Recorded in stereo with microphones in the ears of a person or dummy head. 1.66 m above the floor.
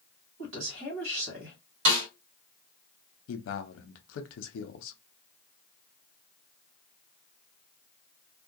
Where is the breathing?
I don't hear breathing.